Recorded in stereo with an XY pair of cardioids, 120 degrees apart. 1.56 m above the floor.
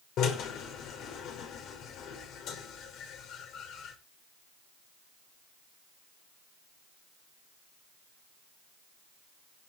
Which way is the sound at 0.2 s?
65° left.